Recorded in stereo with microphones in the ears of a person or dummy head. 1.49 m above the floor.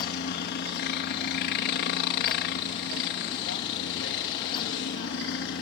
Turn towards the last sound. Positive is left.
turn(degrees=60)  # may be behind; listen again after turning